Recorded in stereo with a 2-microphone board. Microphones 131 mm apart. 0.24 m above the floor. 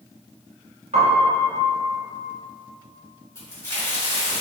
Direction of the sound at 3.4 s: 20° left (ahead or behind).